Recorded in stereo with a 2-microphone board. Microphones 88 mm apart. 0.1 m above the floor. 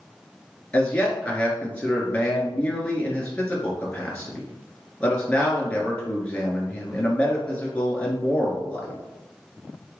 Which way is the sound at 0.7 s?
15° left (ahead or behind).